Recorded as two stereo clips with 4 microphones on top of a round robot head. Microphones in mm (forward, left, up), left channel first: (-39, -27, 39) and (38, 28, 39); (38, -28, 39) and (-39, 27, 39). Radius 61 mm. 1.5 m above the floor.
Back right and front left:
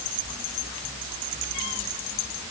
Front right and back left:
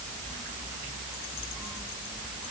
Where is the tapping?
No tapping in this recording.